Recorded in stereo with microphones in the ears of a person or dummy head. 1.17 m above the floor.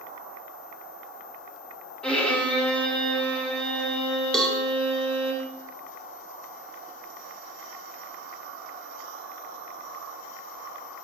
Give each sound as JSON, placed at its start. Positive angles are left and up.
{"t": 2.0, "sound": "a violin", "side_deg": 5, "distance_m": 1.4}
{"t": 4.3, "sound": "a cowbell", "side_deg": 0, "distance_m": 1.0}